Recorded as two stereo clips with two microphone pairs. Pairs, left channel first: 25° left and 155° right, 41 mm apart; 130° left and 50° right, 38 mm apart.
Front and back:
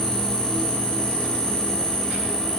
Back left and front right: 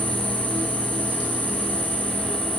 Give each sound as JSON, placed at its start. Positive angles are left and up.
{"t": 0.0, "sound": "an insect", "azimuth_deg": -35, "distance_m": 3.0}